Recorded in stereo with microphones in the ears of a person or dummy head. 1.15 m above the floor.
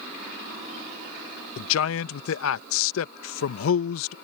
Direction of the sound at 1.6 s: 70° left (ahead or behind).